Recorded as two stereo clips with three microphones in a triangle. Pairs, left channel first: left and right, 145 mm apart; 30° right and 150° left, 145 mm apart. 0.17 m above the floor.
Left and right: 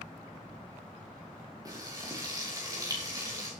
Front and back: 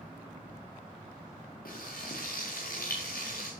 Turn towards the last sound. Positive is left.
turn(degrees=-25)